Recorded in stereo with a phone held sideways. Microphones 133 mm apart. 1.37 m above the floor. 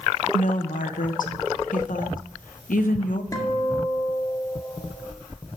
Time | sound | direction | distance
0.3 | a woman speaking | 80° left | 1.3 m
3.3 | a guitar | 25° left (ahead or behind) | 1.7 m